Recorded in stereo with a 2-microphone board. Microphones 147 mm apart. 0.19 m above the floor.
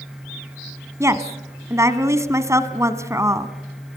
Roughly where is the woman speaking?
Right.